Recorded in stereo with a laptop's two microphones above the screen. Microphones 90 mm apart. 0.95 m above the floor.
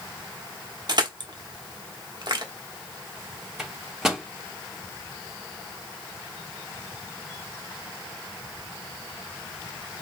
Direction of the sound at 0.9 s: 50° right (ahead or behind).